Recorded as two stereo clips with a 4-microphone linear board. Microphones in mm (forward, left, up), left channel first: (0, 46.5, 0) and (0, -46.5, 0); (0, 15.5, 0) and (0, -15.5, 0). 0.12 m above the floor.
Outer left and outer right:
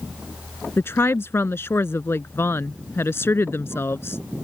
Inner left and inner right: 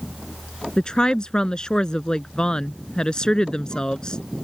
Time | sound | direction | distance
0.8 | a woman speaking | 25° left (ahead or behind) | ?